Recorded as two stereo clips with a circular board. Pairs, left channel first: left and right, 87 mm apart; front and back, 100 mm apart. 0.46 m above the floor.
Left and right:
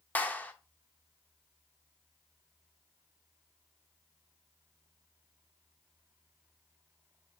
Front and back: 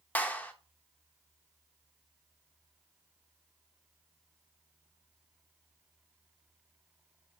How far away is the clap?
About 0.5 m.